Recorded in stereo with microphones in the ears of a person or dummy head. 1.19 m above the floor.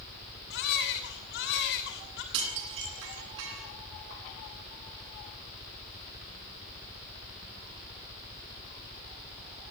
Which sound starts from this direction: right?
Dishes clattering, at 2.3 s.